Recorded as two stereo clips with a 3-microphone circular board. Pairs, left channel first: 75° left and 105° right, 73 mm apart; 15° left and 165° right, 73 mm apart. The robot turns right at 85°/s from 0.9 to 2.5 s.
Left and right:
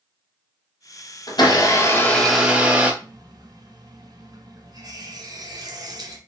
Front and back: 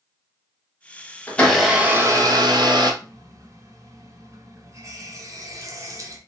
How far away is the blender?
About 1.1 m.